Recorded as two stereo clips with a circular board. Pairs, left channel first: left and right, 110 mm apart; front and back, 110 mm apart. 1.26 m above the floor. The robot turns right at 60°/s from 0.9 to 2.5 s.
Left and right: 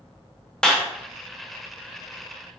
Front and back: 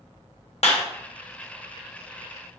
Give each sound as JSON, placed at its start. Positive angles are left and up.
{"t": 0.6, "sound": "a clap", "azimuth_deg": 10, "distance_m": 0.7}